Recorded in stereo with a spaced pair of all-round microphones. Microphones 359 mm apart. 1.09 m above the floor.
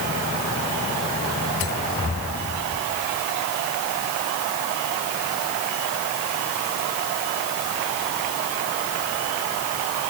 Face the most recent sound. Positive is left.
No sound to turn to.